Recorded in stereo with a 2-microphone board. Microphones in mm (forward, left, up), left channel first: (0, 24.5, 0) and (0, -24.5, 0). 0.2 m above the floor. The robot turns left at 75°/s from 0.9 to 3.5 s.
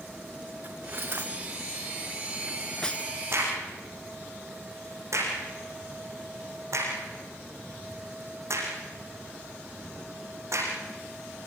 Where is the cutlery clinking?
45° right (ahead or behind), 1.5 m; by 3.1 s 30° left (ahead or behind), 1.5 m.